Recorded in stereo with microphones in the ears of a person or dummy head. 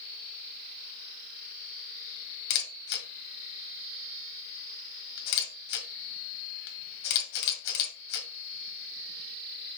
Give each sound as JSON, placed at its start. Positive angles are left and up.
{"t": 2.5, "sound": "a camera shutter", "side_deg": 65, "distance_m": 1.7}